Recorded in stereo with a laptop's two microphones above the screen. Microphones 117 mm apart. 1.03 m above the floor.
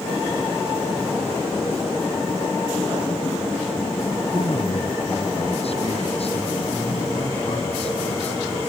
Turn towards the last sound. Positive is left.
turn(degrees=60)  # may be behind; listen again after turning